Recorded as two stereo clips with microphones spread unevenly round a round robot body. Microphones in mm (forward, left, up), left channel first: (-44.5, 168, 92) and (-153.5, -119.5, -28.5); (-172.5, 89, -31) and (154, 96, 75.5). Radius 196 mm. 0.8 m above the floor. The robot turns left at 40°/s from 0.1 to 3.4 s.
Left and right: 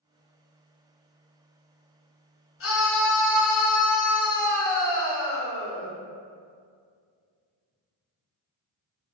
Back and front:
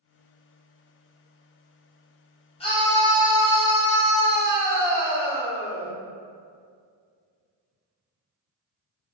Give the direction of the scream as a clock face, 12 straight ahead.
8 o'clock.